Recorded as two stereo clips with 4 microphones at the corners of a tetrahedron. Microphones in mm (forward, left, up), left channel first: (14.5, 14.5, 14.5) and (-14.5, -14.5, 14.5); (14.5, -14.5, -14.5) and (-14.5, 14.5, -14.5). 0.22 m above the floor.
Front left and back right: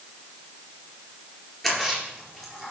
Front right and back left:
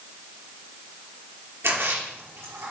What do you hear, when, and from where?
1.6 s a splash: 125° left, 4 m